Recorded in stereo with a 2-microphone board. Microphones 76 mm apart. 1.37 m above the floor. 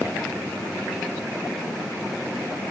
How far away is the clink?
No clink in this recording.